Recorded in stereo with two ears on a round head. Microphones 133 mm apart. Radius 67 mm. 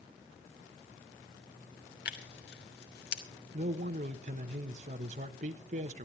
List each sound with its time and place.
2.0 s tearing paper: 75° left (ahead or behind), 2.5 m
3.5 s a man speaking: 55° right (ahead or behind), 1.3 m